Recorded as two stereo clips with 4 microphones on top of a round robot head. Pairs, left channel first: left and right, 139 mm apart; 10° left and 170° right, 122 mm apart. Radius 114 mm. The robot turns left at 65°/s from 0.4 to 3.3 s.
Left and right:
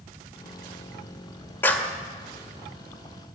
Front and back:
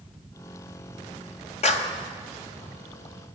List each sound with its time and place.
1.6 s a clap: 20° left, 1.9 m; by 1.9 s 5° right, 1.9 m